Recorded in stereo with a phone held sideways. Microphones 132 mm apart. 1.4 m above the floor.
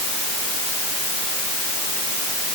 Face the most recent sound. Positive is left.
No sound to turn to.